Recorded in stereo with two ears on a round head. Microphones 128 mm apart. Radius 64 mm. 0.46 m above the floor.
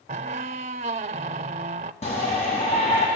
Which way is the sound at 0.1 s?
45° right (ahead or behind).